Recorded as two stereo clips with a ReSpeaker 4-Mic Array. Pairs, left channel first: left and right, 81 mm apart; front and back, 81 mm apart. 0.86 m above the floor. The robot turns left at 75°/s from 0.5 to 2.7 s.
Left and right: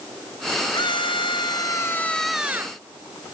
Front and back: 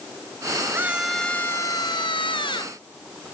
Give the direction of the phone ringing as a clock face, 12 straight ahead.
I don't hear a phone ringing.